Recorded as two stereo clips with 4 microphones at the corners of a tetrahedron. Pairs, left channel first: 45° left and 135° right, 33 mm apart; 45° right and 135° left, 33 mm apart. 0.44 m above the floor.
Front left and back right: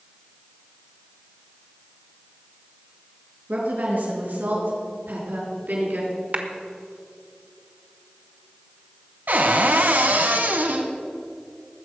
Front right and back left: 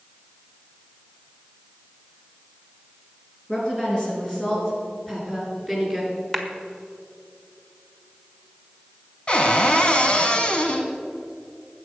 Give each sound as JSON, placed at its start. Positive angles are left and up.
{"t": 3.5, "sound": "a woman speaking", "azimuth_deg": -110, "distance_m": 5.5}
{"t": 6.3, "sound": "a clap", "azimuth_deg": -135, "distance_m": 1.3}
{"t": 9.3, "sound": "a cupboard door", "azimuth_deg": -110, "distance_m": 1.4}